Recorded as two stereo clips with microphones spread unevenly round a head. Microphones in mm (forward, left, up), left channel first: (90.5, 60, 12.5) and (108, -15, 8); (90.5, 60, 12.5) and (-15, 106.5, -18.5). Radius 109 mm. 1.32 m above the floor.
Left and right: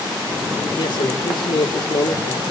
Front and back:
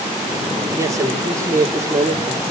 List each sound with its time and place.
0.8 s a man speaking: 90° left, 3 m